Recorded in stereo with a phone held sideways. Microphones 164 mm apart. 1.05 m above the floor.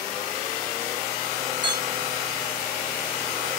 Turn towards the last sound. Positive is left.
turn(degrees=-25)  # may be behind; listen again after turning